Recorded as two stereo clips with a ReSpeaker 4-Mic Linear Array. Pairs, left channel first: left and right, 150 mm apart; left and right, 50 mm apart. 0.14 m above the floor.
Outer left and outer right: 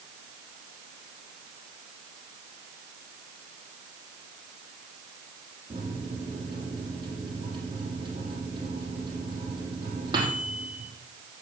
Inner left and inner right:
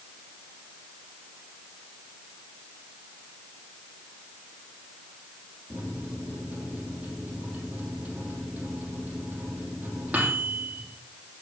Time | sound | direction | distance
5.7 | a microwave | 30° right (ahead or behind) | 4 m